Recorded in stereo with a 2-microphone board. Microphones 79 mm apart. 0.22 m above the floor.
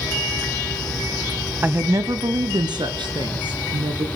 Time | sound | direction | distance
1.6 | a woman speaking | 25° right (ahead or behind) | 1.0 m